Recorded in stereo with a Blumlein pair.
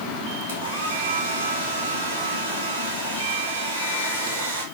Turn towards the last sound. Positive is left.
turn(degrees=-60)